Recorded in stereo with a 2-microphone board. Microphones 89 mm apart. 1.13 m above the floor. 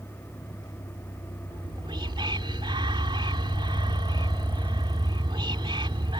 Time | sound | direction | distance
0.0 | a vehicle | 55° left (ahead or behind) | ?
1.5 | whispering | 70° right (ahead or behind) | ?